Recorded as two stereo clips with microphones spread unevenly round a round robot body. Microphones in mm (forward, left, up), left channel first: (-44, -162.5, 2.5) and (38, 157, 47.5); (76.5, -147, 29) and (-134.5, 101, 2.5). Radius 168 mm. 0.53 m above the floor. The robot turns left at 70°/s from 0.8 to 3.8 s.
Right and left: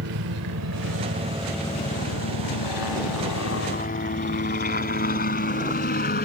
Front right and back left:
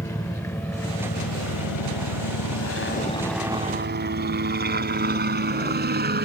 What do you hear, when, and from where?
0.0 s a helicopter: 30° left; by 6.2 s 170° right